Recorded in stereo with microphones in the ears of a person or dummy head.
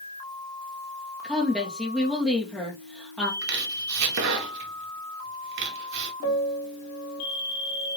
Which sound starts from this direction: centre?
A woman speaking, at 1.2 s.